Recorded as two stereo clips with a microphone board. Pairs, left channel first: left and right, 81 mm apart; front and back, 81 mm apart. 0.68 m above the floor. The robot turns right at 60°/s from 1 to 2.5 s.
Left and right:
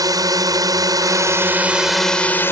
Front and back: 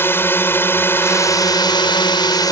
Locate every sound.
0.0 s a drone: 60° right; by 2.5 s 30° left